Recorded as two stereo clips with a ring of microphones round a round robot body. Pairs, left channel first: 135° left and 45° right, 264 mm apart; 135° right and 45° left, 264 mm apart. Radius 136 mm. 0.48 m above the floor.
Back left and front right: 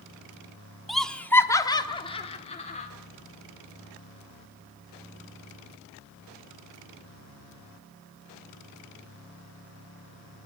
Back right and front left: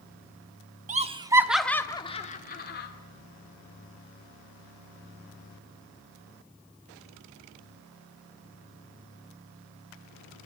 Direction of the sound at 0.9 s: 45° left.